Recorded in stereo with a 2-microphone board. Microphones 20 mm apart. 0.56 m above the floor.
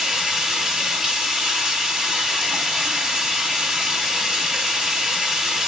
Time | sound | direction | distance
0.0 | running water | 25° right (ahead or behind) | 1.2 m